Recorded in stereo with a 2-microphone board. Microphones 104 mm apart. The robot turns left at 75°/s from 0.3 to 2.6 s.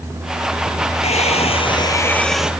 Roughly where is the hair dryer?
Left.